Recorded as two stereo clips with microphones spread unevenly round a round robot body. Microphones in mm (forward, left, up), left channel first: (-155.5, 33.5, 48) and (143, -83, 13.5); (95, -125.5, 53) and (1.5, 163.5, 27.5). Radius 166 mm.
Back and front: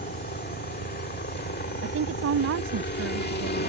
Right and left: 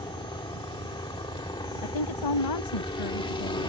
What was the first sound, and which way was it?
A helicopter, 145° right.